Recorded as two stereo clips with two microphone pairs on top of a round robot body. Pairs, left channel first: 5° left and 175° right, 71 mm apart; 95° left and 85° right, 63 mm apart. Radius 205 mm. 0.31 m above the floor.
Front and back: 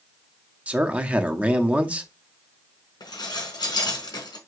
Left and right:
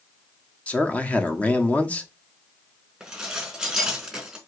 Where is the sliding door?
No sliding door in this recording.